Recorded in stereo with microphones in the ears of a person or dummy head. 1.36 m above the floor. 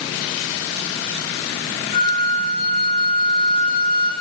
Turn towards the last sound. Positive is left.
turn(degrees=30)  # may be behind; listen again after turning